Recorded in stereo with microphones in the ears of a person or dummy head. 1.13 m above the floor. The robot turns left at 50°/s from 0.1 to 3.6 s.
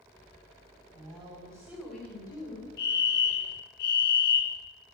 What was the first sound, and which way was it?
A woman speaking, 135° right.